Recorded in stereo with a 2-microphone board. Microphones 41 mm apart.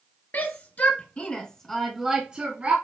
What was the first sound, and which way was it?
A shout, 55° left (ahead or behind).